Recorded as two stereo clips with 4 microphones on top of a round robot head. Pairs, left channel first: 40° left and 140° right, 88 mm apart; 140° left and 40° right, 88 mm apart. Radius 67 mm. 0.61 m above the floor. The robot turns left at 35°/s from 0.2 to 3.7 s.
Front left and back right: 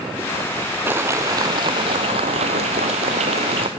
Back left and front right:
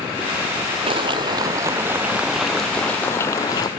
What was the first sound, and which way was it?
A clap, 70° right.